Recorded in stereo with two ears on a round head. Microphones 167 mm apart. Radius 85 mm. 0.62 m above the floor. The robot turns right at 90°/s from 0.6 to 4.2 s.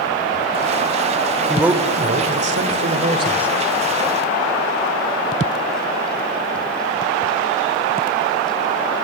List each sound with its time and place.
1.5 s a man speaking: 175° left, 2.5 m; by 3.5 s straight ahead, 2.5 m